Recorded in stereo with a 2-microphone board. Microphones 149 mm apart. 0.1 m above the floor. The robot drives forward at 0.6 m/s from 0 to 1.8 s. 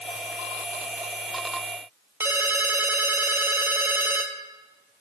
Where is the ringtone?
15° right (ahead or behind), 1.3 m.